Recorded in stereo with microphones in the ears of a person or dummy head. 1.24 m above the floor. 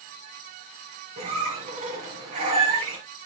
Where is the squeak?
45° right (ahead or behind), 5 m.